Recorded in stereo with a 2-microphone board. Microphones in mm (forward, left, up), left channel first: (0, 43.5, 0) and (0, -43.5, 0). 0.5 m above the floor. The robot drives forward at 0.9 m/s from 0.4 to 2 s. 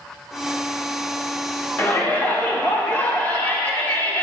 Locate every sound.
1.8 s a shout: 20° left (ahead or behind), 1.1 m